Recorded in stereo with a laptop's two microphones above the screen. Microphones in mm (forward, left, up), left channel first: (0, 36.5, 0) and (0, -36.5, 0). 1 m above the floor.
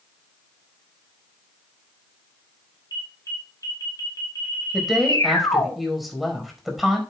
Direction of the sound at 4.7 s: Centre (ahead or behind).